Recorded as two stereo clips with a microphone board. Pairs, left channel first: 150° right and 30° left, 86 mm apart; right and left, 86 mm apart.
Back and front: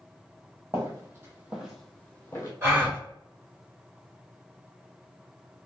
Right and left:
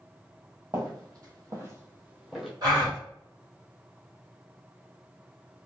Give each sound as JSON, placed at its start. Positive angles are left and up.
{"t": 0.7, "sound": "footsteps", "azimuth_deg": 70, "distance_m": 1.4}
{"t": 2.6, "sound": "a gasp", "azimuth_deg": 80, "distance_m": 1.5}